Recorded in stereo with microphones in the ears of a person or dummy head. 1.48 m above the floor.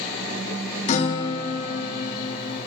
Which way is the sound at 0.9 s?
40° left (ahead or behind).